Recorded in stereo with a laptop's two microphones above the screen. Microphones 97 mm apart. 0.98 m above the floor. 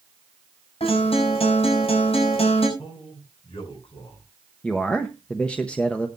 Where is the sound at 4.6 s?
10° left (ahead or behind), 0.7 m.